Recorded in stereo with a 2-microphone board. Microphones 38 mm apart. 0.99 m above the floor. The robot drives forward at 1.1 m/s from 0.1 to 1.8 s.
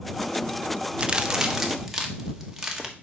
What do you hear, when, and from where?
1.0 s a crack: 30° right (ahead or behind), 0.6 m; by 2.9 s 10° right (ahead or behind), 1.4 m